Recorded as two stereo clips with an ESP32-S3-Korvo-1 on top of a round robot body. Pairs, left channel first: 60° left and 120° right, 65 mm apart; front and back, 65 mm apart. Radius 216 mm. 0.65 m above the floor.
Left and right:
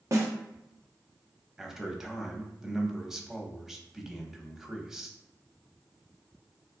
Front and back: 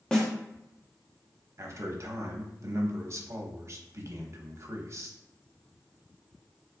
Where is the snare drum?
75° right, 1.1 m.